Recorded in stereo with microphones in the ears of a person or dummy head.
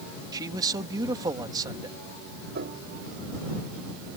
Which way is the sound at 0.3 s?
25° right (ahead or behind).